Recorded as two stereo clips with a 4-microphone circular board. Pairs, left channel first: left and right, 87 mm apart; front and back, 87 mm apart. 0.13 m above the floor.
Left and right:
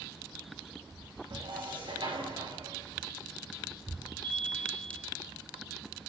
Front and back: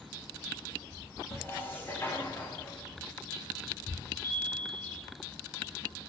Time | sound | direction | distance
1.3 | dishes clattering | 65° right | 9 m
4.2 | a chime | 65° right | 10 m